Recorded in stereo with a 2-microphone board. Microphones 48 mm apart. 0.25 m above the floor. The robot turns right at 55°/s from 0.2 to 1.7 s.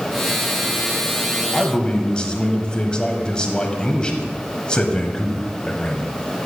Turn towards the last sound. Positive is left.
turn(degrees=25)  # may be behind; listen again after turning